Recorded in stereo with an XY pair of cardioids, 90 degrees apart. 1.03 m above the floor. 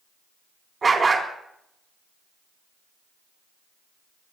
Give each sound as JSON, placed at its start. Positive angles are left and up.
{"t": 0.8, "sound": "a dog barking", "azimuth_deg": -35, "distance_m": 4.0}